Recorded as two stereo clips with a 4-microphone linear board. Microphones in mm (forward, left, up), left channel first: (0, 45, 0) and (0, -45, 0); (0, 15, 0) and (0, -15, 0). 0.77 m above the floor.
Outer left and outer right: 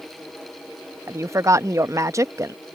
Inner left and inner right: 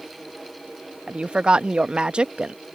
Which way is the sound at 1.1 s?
35° right (ahead or behind).